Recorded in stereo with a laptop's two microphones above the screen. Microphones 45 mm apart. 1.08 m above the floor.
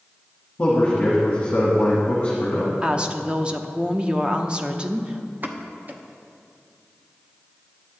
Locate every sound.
0.6 s a man speaking: 35° left (ahead or behind), 1.4 m
2.8 s a woman speaking: 20° right (ahead or behind), 0.7 m
5.4 s a pop: 40° right (ahead or behind), 0.8 m